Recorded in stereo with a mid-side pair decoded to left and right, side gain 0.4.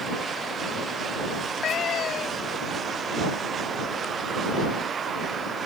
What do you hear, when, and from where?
1.4 s a cat meowing: 70° left